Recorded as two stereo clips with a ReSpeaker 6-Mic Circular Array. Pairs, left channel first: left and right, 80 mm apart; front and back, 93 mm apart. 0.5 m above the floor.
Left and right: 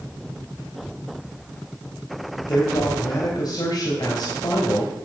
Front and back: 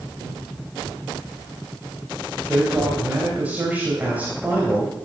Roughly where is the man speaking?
Left.